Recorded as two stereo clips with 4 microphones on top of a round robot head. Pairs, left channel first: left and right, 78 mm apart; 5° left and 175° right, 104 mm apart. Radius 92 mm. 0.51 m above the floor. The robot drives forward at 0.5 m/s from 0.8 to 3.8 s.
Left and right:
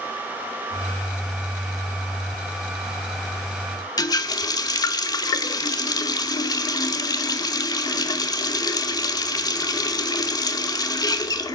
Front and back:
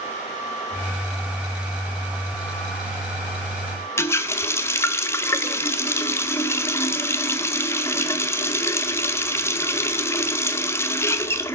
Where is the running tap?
65° left, 0.6 m.